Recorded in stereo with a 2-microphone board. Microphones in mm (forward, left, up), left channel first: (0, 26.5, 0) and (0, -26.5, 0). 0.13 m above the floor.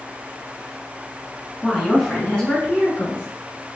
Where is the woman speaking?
5° right (ahead or behind), 1.2 m; by 3.3 s 35° left (ahead or behind), 1.6 m.